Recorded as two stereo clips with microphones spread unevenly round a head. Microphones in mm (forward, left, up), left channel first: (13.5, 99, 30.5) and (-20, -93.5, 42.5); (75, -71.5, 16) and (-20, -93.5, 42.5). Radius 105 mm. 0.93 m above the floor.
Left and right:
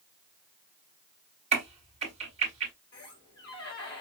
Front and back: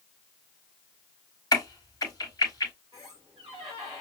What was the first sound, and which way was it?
A crack, 40° right.